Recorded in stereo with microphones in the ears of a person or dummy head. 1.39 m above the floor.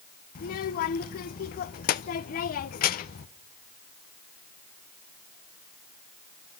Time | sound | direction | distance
0.3 | a child speaking | 50° left (ahead or behind) | 0.7 m